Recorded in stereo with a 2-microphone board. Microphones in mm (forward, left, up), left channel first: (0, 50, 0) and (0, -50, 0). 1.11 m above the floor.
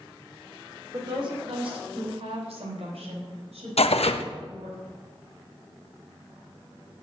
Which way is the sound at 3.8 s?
85° left.